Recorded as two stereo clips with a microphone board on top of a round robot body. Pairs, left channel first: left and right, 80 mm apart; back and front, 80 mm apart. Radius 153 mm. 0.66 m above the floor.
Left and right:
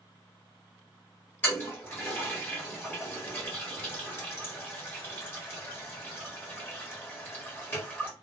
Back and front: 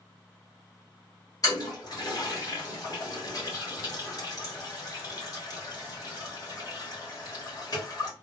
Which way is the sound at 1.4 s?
150° left.